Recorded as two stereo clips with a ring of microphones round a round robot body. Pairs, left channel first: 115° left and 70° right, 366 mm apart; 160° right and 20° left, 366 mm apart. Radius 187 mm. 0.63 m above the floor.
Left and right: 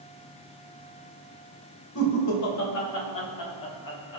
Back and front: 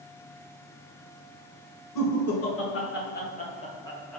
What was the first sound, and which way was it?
Laughter, 160° left.